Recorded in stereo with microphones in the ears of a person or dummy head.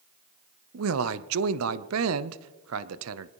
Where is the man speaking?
75° right (ahead or behind), 0.7 m.